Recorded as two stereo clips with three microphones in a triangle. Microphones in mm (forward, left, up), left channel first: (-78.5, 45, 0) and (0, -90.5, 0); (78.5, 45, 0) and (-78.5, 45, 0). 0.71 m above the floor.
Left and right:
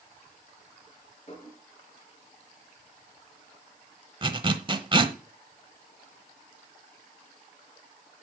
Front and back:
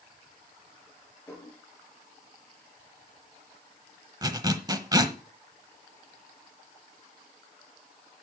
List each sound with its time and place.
1.3 s dishes clattering: 80° left, 6.5 m
4.2 s a zipper: 115° right, 1.0 m